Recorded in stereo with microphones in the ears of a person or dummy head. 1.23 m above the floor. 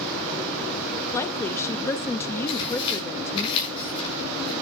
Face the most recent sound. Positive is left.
turn(degrees=30)  # may be behind; listen again after turning